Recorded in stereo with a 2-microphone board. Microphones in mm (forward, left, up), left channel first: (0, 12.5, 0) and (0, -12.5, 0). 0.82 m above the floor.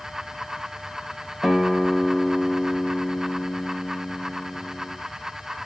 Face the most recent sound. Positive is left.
turn(degrees=-20)  # may be behind; listen again after turning